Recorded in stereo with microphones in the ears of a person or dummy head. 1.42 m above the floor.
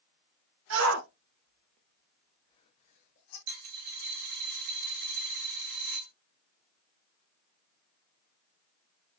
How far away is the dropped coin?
About 1.8 m.